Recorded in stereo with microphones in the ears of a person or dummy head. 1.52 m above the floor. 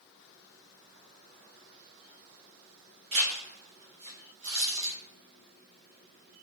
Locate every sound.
3.1 s a zipper: 30° right (ahead or behind), 1.0 m